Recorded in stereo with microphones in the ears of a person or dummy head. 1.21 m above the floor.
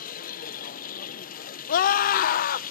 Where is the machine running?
40° left (ahead or behind), 0.7 m.